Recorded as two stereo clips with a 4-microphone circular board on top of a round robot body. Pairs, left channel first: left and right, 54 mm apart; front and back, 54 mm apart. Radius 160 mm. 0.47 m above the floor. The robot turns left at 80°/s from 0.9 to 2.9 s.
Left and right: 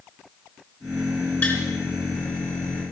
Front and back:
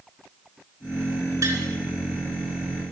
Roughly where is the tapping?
Behind left.